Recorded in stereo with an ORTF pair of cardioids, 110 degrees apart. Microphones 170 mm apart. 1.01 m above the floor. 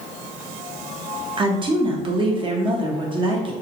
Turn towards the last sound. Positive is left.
turn(degrees=-30)